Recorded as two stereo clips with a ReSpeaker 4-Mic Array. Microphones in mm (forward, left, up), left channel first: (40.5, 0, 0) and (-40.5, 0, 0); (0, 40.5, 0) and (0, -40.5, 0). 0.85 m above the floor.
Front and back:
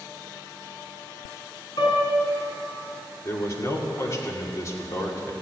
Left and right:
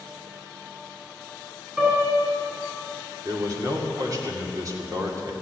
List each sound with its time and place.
1.8 s a piano: 20° right, 5 m
3.2 s a man speaking: 50° right, 2 m